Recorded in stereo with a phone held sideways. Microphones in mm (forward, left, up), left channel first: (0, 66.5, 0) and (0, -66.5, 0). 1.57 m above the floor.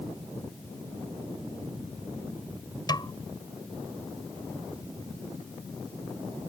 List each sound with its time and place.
2.9 s a snare drum: 30° left (ahead or behind)